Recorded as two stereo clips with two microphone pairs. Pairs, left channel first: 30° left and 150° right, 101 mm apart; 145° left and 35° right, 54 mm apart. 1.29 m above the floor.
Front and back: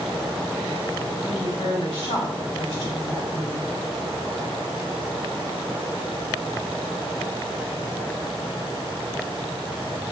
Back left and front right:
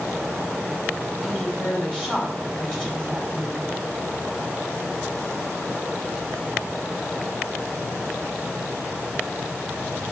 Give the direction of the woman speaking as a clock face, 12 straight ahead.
10 o'clock.